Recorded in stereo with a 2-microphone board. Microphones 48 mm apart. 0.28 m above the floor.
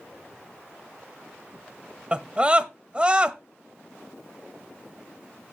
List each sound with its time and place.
2.1 s a scream: 25° right (ahead or behind), 1.0 m